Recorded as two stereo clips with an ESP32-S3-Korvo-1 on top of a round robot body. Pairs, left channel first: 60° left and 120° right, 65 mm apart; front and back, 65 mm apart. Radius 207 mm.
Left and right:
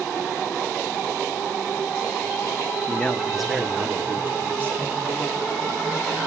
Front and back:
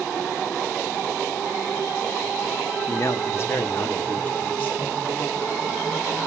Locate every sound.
2.9 s a man speaking: 10° left, 1.0 m; by 4.9 s 65° right, 2.5 m